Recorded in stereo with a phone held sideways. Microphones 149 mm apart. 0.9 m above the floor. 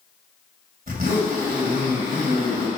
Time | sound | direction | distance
0.9 | a zipper | 70° right (ahead or behind) | 2.5 m